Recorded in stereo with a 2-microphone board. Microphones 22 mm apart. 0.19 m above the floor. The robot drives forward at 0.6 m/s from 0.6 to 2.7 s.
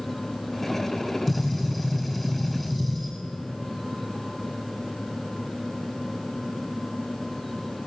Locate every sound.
1.3 s a gunshot: centre (ahead or behind), 8 m